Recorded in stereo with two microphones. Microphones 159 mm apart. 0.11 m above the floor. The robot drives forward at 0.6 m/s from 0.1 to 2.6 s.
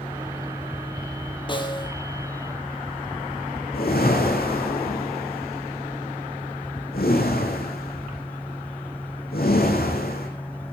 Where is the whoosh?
80° left, 5 m.